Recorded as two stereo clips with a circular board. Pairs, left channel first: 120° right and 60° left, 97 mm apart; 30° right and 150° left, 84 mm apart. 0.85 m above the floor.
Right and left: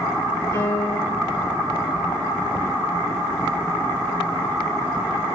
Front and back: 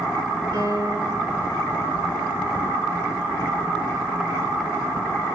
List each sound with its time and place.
0.5 s a piano: 175° left, 7.5 m